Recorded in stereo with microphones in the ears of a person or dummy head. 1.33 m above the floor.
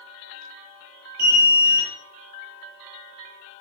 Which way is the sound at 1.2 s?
50° right (ahead or behind).